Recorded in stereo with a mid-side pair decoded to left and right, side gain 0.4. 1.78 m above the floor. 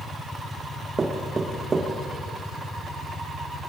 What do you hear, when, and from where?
1.0 s knocking: 40° right, 3 m